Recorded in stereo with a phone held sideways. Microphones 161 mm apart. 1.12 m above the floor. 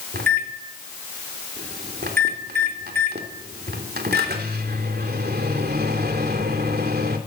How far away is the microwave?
About 3 m.